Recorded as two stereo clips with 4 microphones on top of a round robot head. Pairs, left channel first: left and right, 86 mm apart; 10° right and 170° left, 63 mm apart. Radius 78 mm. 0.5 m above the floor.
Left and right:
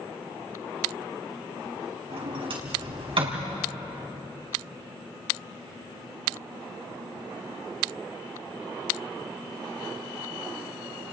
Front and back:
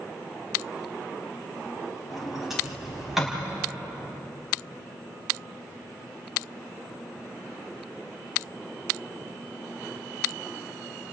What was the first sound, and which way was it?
A sliding door, 105° right.